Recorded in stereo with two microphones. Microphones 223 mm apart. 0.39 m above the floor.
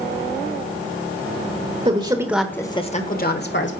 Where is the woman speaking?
30° right (ahead or behind), 1.3 m; by 3.7 s 55° left (ahead or behind), 1.8 m.